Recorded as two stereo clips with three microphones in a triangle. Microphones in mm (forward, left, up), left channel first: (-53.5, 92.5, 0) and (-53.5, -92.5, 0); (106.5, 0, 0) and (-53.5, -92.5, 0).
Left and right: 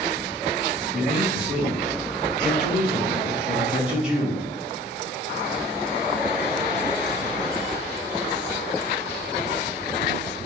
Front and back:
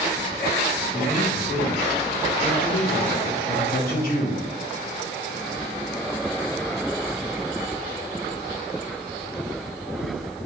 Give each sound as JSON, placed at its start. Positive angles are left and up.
{"t": 0.9, "sound": "a man speaking", "azimuth_deg": -5, "distance_m": 3.0}